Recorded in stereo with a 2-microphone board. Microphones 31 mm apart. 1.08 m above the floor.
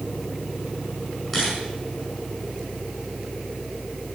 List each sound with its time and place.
1.3 s a camera shutter: 10° left (ahead or behind), 6.5 m